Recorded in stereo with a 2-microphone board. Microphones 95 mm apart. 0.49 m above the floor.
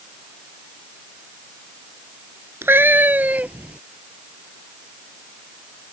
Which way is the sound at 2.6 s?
25° right (ahead or behind).